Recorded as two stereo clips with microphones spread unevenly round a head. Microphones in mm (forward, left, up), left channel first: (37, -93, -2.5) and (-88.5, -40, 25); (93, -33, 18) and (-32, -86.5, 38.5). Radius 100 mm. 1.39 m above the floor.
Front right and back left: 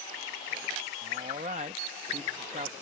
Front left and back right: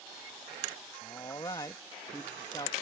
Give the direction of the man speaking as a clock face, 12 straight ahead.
9 o'clock.